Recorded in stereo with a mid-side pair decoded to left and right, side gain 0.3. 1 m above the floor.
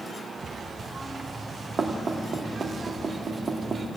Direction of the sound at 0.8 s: 50° right.